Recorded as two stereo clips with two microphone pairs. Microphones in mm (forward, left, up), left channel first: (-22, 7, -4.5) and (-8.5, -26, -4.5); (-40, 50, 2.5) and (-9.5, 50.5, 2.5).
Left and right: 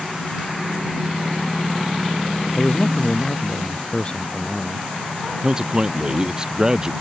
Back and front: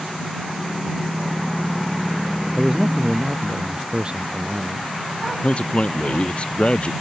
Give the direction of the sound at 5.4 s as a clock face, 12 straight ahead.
5 o'clock.